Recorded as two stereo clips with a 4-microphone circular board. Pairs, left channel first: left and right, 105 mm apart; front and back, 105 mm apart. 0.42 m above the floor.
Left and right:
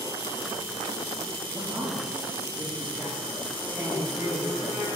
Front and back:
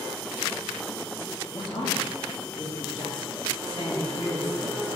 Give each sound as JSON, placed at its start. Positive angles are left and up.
{"t": 1.5, "sound": "a man speaking", "azimuth_deg": -20, "distance_m": 2.0}